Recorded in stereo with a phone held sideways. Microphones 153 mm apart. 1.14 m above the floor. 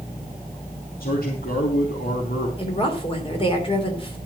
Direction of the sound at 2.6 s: 35° left (ahead or behind).